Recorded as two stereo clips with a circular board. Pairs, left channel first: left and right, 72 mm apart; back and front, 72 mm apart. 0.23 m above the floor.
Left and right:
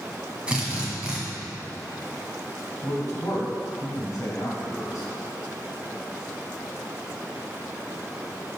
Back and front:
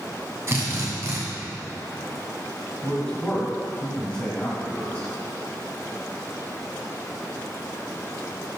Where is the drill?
25° right, 2.0 m.